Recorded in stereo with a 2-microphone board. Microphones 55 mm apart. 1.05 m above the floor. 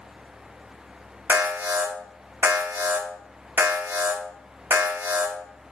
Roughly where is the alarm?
Right.